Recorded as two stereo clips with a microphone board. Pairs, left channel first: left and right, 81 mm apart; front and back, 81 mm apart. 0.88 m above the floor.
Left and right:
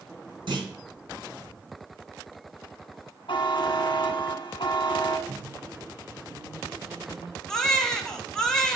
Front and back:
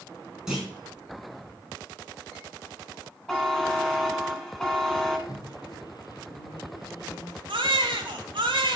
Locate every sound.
0.5 s a clunk: 95° right, 4 m
3.3 s a buzzer: 85° left, 1.7 m
5.3 s a microwave: 35° right, 0.9 m
7.5 s a baby crying: 175° left, 1.4 m